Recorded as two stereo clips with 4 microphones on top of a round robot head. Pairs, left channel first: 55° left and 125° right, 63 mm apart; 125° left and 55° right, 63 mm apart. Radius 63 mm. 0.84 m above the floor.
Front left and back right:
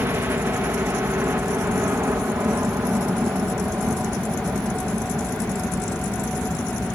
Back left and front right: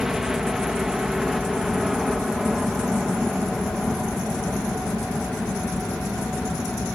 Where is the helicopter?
135° right; by 7.0 s 160° right.